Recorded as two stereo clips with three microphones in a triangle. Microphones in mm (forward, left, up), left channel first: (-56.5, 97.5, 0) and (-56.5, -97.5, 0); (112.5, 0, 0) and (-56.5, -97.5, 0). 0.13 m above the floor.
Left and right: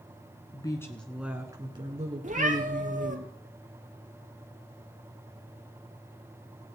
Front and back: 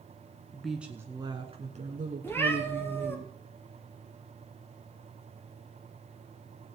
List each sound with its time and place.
0.5 s a woman speaking: 110° left, 1.1 m; by 3.2 s 120° right, 2 m
2.2 s a cat meowing: 50° right, 1.3 m